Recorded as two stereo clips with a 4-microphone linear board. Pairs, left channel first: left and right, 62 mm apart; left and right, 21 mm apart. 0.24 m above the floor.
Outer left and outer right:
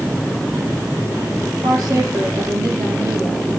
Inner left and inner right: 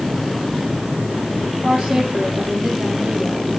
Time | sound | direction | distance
1.6 | a woman speaking | 65° right (ahead or behind) | 7.5 m